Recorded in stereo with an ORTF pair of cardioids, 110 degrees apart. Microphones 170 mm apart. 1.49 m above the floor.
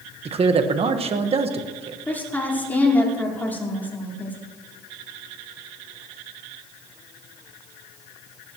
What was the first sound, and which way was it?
A man speaking, 35° right.